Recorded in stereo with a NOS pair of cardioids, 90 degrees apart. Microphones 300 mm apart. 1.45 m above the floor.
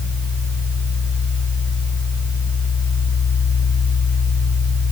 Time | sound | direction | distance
0.0 | a fan | 10° right | 3.5 m